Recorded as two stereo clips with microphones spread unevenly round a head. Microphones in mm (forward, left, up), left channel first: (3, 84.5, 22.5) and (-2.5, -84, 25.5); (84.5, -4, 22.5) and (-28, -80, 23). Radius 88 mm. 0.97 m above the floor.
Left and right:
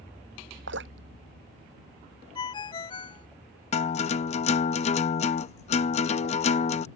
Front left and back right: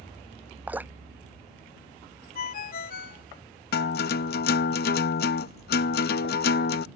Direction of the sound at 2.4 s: 25° left.